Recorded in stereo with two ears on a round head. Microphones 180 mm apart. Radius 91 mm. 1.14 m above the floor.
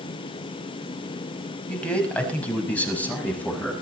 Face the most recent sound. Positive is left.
turn(degrees=10)  # may be behind; listen again after turning